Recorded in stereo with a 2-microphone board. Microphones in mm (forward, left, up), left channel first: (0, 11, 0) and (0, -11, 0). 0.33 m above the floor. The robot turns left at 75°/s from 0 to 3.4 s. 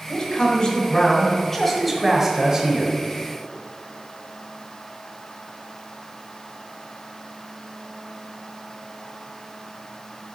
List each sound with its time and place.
0.1 s a man speaking: 125° left, 1.3 m; by 2.9 s 90° right, 1.3 m